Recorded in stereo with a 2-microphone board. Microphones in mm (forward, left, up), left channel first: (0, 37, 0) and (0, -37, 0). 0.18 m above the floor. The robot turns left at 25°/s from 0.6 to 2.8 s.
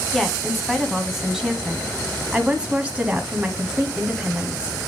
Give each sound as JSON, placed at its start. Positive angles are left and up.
{"t": 0.1, "sound": "a woman speaking", "side_deg": 0, "distance_m": 1.0}